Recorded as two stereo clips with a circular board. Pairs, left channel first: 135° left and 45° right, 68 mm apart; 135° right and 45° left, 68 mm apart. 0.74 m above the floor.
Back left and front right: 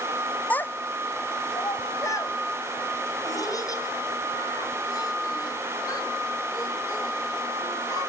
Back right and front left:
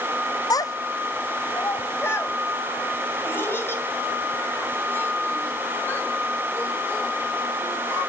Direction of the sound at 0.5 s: 155° right.